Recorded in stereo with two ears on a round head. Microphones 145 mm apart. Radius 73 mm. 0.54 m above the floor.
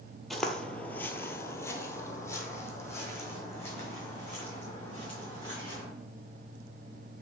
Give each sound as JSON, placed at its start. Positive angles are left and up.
{"t": 0.3, "sound": "footsteps", "side_deg": 0, "distance_m": 0.6}